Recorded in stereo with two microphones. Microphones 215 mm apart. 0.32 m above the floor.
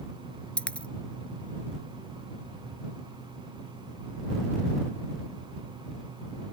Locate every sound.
0.6 s a dropped coin: 5° left (ahead or behind)